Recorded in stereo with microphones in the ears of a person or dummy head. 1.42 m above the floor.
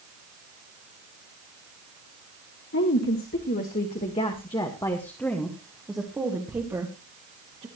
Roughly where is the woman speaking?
Left.